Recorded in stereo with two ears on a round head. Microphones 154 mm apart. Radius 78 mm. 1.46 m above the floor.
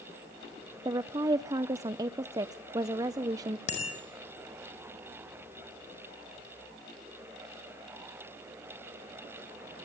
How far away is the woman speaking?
About 0.5 m.